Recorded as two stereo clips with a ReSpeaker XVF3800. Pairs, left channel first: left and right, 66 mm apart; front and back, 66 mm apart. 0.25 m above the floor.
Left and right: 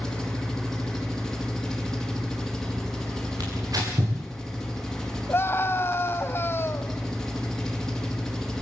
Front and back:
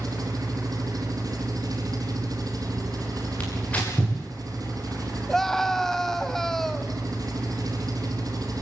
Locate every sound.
0.0 s an engine running: 175° left, 3.5 m
3.4 s tearing paper: 70° right, 7.5 m
5.3 s a scream: 80° left, 1.6 m